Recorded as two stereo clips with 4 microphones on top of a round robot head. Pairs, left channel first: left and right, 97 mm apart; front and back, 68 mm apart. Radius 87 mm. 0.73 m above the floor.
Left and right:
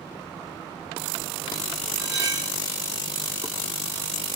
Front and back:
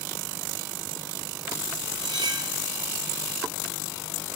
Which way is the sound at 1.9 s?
150° right.